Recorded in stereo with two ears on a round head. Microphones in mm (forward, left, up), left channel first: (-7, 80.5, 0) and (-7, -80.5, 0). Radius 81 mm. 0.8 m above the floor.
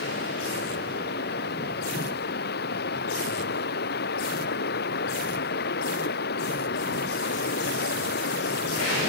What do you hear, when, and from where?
0.0 s running water: 60° left (ahead or behind)